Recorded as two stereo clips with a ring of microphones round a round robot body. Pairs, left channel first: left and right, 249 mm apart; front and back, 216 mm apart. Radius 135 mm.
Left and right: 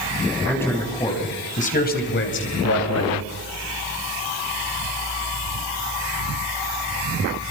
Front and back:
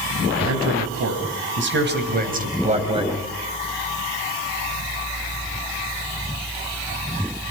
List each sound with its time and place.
0.5 s a man speaking: 175° left, 4.5 m; by 3.3 s 110° left, 3.5 m